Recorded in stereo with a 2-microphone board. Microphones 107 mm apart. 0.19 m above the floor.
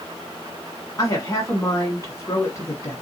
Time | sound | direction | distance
1.0 | a woman speaking | 35° left (ahead or behind) | 1.5 m